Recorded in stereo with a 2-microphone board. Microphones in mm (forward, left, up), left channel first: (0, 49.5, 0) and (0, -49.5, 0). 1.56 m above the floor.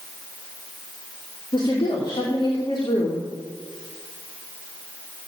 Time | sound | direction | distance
1.5 | a woman speaking | 55° left (ahead or behind) | 2.5 m